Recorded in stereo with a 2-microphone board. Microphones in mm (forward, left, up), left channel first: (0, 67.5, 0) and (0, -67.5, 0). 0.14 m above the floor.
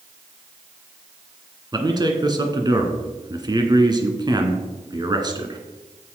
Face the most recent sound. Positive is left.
turn(degrees=-30)  # may be behind; listen again after turning